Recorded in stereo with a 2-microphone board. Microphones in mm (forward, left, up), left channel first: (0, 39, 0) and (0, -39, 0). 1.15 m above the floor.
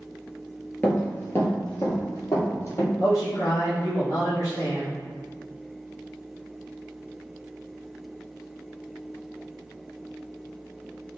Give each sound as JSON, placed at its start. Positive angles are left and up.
{"t": 0.8, "sound": "running footsteps", "side_deg": 20, "distance_m": 1.1}
{"t": 3.0, "sound": "a man speaking", "side_deg": 45, "distance_m": 0.9}